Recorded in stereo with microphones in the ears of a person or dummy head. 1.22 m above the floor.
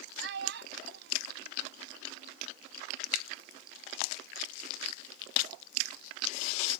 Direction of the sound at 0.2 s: 70° right (ahead or behind).